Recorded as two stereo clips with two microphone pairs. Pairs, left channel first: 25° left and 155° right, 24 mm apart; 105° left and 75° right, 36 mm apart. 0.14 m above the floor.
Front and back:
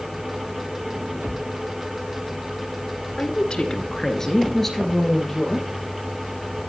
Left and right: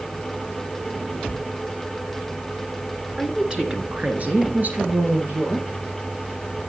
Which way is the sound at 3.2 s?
Straight ahead.